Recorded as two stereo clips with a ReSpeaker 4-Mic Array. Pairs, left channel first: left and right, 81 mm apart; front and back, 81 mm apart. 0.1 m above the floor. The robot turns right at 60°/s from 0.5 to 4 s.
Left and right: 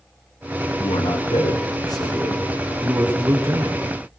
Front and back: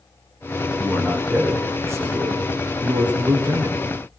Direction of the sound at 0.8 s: 60° left.